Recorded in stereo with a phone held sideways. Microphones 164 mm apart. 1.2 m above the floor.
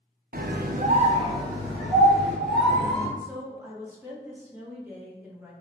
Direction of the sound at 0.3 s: 60° right (ahead or behind).